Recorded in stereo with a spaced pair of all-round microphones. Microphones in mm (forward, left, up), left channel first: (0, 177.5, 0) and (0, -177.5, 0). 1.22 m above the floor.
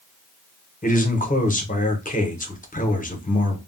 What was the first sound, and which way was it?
A man speaking, 25° left (ahead or behind).